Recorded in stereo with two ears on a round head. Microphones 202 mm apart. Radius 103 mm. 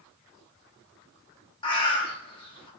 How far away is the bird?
About 0.9 m.